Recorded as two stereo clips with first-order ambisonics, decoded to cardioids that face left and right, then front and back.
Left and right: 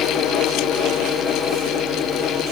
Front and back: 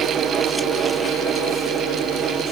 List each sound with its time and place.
Only background noise.